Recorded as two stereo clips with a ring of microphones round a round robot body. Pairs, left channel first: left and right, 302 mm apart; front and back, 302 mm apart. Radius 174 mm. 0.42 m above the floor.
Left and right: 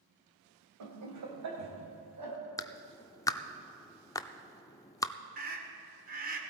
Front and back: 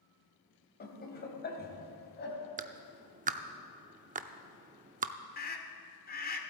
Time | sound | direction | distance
0.8 | laughter | 55° right | 2.5 m
2.6 | a clap | 155° left | 0.5 m
5.4 | a scream | 45° right | 1.7 m